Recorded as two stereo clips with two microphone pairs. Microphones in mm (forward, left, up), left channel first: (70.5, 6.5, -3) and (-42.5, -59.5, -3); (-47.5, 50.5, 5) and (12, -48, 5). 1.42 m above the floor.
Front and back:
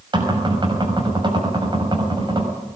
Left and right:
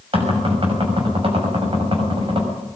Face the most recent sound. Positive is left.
turn(degrees=-95)